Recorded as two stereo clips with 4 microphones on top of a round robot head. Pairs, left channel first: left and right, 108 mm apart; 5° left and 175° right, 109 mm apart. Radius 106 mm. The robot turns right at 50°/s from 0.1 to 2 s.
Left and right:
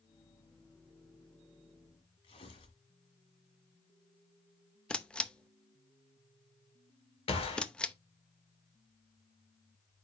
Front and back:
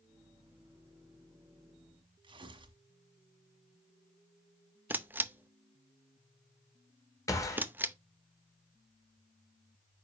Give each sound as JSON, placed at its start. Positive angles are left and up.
{"t": 2.2, "sound": "tearing paper", "azimuth_deg": 145, "distance_m": 1.6}
{"t": 4.9, "sound": "a camera shutter", "azimuth_deg": 155, "distance_m": 0.7}
{"t": 7.3, "sound": "a gunshot", "azimuth_deg": 60, "distance_m": 2.0}